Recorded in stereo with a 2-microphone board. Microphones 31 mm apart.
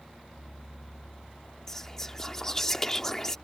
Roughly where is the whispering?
Centre.